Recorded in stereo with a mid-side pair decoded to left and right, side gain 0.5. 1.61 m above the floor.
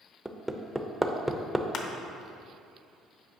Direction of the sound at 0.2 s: 5° right.